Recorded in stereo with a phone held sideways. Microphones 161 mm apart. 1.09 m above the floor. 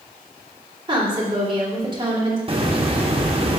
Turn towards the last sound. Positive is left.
turn(degrees=-35)  # may be behind; listen again after turning